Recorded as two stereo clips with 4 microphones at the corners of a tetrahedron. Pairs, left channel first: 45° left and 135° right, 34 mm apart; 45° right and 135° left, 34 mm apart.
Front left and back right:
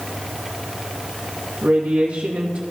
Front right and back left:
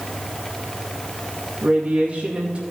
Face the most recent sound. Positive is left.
turn(degrees=-170)